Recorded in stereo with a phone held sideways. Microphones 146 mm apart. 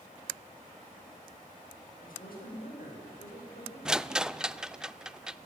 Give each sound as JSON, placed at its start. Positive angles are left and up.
{"t": 2.0, "sound": "a woman speaking", "side_deg": 85, "distance_m": 8.0}
{"t": 3.9, "sound": "a rattle", "side_deg": -5, "distance_m": 0.5}